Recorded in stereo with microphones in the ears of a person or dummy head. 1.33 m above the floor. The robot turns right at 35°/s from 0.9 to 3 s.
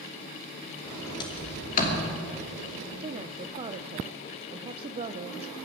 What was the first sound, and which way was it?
A sliding door, 15° left (ahead or behind).